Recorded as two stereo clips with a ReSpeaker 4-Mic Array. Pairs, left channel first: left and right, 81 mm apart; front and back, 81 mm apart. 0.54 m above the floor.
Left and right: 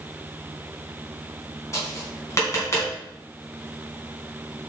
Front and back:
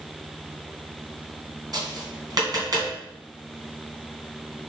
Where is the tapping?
145° left, 3 m.